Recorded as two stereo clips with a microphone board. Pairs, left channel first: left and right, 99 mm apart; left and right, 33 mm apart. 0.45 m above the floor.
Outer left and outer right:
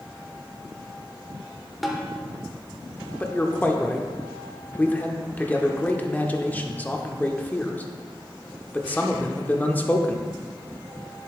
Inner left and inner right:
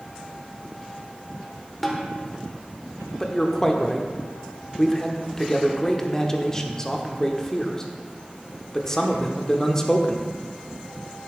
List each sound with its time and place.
1.8 s a snare drum: centre (ahead or behind), 1.1 m
3.2 s a man speaking: 20° left (ahead or behind), 0.7 m